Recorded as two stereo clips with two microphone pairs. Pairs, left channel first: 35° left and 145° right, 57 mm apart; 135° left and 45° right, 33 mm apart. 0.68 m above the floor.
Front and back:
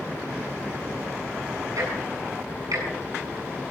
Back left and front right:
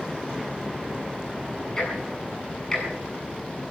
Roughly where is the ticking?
Behind right.